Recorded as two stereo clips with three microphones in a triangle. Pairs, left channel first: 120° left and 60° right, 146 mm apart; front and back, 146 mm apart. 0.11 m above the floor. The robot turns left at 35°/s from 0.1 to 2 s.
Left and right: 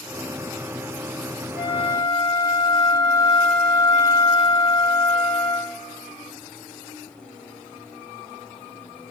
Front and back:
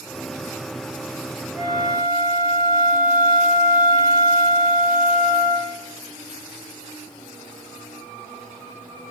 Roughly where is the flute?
Ahead left.